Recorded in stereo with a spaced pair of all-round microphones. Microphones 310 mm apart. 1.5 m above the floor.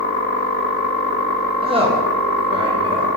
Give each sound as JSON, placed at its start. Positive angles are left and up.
{"t": 1.6, "sound": "a woman speaking", "side_deg": -20, "distance_m": 1.6}